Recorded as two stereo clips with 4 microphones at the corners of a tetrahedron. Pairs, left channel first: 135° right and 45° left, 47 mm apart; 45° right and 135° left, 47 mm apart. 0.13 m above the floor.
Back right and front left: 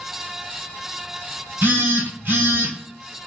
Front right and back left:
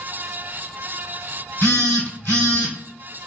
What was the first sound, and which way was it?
A phone buzzing, straight ahead.